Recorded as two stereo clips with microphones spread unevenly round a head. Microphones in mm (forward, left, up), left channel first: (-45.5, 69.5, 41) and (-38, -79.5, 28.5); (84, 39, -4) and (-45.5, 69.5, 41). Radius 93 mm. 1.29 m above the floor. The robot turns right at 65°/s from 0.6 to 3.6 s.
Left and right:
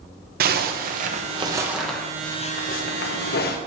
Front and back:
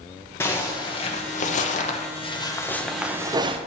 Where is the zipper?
80° right, 0.9 m; by 3.6 s 115° left, 0.9 m.